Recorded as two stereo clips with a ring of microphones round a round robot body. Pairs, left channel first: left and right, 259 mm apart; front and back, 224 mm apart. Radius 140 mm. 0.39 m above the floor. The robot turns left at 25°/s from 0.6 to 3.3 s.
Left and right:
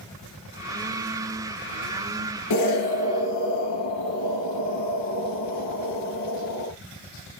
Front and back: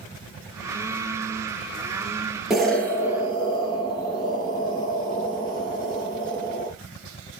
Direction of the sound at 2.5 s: 90° left.